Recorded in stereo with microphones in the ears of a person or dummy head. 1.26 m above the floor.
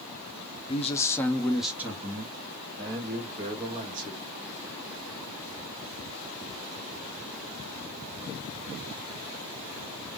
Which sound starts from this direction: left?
A man speaking, at 0.7 s.